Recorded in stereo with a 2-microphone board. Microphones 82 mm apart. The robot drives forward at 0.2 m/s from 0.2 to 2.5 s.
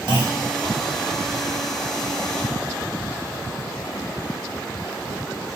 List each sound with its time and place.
0.1 s a clunk: 65° right (ahead or behind), 1.3 m